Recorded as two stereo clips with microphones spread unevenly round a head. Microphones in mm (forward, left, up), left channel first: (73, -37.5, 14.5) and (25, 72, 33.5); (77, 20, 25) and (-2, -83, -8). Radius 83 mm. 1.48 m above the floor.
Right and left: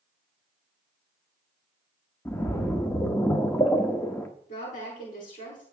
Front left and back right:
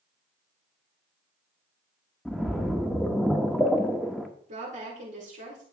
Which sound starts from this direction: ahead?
A splash, at 2.2 s.